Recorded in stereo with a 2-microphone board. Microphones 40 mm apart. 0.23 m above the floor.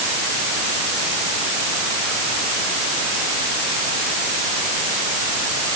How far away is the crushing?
No crushing in this recording.